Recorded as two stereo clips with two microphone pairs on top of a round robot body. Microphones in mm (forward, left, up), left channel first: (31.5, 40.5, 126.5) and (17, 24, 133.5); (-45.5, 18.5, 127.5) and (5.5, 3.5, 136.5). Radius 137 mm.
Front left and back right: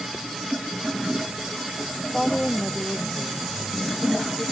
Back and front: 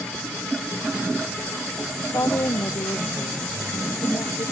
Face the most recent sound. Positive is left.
turn(degrees=140)